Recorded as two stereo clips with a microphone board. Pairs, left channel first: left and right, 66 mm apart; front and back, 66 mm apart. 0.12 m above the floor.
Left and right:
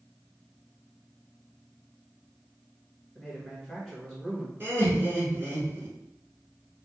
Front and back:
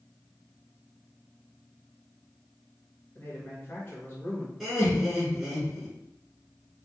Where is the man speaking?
5° right, 1.3 m.